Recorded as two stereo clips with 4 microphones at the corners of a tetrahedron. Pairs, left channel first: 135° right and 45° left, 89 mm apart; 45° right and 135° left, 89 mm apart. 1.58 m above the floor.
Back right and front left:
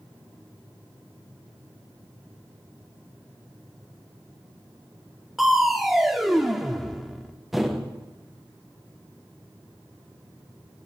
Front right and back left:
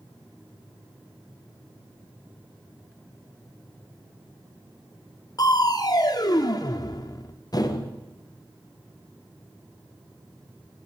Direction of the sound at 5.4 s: 45° right.